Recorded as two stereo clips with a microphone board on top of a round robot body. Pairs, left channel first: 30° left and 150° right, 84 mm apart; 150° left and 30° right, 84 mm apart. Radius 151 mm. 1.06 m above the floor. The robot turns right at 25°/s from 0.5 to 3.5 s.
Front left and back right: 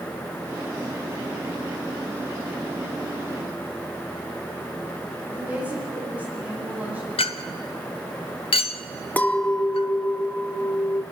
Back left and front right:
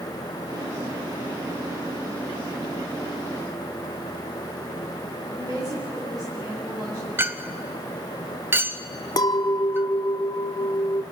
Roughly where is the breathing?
I don't hear breathing.